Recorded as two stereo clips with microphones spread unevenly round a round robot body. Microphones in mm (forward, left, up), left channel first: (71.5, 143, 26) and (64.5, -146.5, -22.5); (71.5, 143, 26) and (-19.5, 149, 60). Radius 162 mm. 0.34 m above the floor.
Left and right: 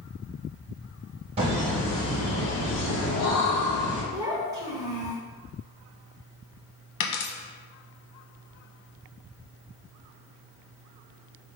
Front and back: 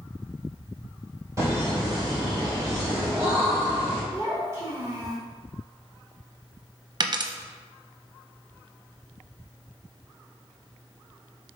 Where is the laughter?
115° right, 1.7 m; by 4.0 s 110° left, 3.5 m.